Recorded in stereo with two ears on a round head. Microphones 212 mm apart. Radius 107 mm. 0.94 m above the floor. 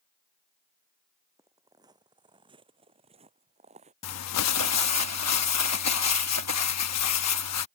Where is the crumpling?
75° left (ahead or behind).